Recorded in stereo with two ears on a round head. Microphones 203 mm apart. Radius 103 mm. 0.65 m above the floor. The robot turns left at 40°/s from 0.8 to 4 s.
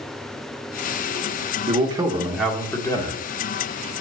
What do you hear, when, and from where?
1.7 s a man speaking: 150° right, 1.3 m; by 3.2 s 150° left, 1.3 m